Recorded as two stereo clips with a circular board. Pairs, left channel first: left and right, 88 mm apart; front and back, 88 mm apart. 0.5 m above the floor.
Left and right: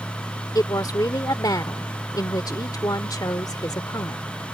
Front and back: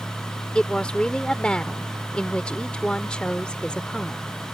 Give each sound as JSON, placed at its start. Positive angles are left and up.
{"t": 0.6, "sound": "a woman speaking", "azimuth_deg": 75}